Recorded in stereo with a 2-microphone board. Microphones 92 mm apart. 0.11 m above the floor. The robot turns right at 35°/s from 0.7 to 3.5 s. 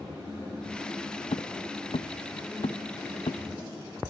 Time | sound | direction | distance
1.3 | footsteps | 80° left | ?